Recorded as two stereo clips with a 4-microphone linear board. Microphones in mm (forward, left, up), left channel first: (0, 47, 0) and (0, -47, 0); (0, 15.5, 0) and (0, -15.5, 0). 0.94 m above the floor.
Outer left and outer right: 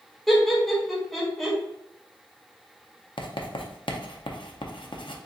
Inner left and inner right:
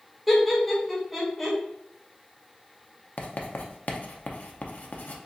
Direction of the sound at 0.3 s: 5° left (ahead or behind).